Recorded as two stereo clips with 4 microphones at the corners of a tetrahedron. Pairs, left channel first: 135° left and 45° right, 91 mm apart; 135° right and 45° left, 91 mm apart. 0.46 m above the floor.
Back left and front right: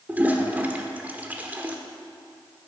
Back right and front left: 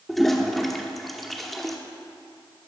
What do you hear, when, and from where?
0.1 s a toilet flushing: 50° right, 0.9 m